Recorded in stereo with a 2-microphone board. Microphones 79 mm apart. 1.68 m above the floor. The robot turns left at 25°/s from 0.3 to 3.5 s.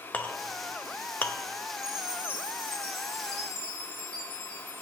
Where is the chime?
10° right, 2.5 m; by 4.8 s 50° right, 2.5 m.